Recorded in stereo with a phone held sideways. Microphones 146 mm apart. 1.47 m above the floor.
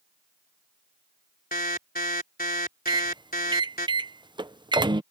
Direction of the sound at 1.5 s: 85° left.